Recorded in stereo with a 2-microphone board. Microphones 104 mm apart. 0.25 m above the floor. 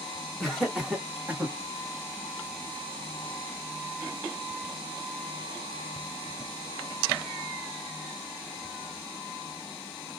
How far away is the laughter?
About 2 m.